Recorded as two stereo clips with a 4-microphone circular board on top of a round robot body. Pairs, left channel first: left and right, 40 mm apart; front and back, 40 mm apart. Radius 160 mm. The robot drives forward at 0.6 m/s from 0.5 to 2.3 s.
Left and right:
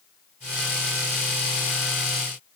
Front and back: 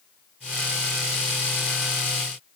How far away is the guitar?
No guitar in this recording.